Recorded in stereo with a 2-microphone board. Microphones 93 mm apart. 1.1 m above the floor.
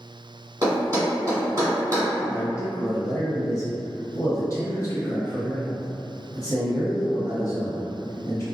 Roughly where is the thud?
Right.